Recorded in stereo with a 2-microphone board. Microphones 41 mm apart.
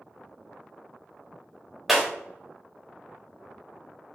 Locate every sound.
1.9 s breaking glass: 5° right (ahead or behind), 1.0 m